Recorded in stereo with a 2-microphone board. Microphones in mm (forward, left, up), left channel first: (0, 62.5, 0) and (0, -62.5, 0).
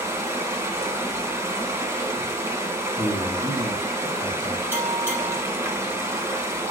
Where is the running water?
20° right (ahead or behind), 2 m.